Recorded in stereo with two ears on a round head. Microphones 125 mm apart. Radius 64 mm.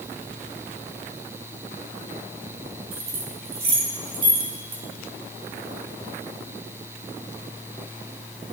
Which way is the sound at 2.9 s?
45° right (ahead or behind).